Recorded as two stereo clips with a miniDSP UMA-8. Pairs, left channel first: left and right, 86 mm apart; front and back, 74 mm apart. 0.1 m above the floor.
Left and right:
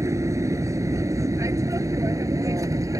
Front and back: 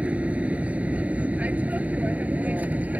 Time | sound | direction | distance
0.0 | an aircraft | 115° right | ?